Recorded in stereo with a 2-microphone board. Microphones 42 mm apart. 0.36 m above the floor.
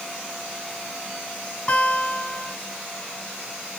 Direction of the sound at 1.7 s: 35° left (ahead or behind).